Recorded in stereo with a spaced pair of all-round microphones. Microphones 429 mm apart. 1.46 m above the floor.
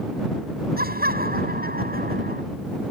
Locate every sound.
0.8 s laughter: 20° right (ahead or behind)